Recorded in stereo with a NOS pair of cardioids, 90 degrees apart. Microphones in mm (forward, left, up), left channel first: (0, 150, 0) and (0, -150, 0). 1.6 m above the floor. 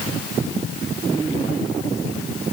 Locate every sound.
Only background noise.